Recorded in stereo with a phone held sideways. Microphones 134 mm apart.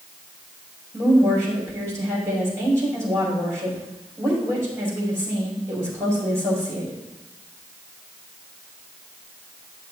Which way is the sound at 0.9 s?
20° right (ahead or behind).